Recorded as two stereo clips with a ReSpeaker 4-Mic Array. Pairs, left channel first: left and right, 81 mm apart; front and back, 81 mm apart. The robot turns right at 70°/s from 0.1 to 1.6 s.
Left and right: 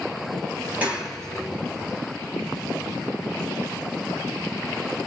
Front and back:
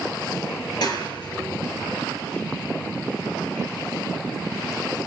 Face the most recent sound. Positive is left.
turn(degrees=35)